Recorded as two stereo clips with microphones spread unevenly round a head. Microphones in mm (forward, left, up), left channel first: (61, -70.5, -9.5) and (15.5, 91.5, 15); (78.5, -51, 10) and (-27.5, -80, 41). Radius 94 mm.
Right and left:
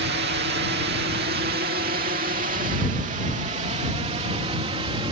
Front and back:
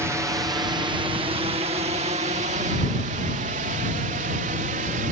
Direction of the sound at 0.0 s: 115° left.